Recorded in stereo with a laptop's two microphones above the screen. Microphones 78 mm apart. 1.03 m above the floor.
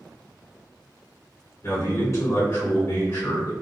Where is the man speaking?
40° left (ahead or behind), 1.8 m.